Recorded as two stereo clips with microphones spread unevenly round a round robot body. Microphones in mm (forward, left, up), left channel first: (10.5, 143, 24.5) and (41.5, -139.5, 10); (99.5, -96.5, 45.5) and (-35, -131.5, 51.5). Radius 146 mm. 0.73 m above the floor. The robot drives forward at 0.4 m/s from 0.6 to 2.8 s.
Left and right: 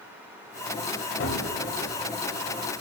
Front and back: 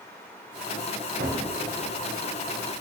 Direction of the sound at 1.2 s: 145° left.